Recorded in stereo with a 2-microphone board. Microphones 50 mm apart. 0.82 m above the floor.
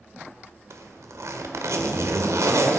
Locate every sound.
0.7 s a zipper: 75° right (ahead or behind), 1.4 m